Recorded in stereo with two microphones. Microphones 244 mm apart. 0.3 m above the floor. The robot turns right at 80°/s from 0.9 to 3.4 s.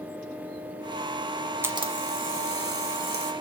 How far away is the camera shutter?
About 1.3 m.